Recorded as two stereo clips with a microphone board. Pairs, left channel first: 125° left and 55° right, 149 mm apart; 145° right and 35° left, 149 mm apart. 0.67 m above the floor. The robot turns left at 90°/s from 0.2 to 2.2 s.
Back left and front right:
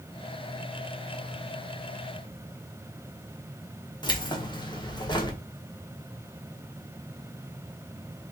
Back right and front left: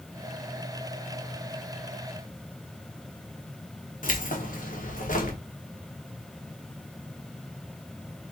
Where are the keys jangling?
175° right, 1.2 m.